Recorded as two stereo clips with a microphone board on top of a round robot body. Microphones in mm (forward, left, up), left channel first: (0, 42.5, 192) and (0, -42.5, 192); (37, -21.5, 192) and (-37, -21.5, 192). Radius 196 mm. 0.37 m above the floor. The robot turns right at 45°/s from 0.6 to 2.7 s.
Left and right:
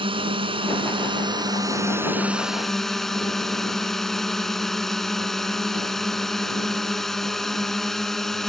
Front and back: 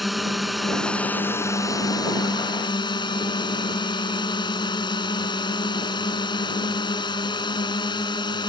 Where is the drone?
90° right; by 8.5 s 5° left.